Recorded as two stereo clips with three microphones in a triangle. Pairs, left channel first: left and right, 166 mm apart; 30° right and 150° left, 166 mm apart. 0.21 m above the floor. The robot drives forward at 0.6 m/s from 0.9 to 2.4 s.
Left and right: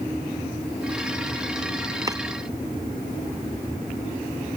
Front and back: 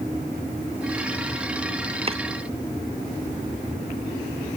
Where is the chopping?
155° right.